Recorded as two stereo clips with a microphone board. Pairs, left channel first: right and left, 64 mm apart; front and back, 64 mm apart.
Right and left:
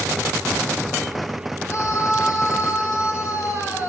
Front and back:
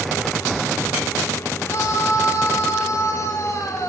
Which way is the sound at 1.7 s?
45° right.